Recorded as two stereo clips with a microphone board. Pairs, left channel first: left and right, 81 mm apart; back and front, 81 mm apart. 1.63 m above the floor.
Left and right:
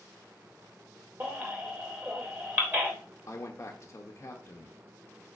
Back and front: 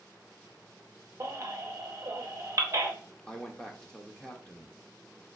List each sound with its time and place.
1.2 s a baby crying: 30° right, 0.8 m
3.3 s a man speaking: 105° left, 0.6 m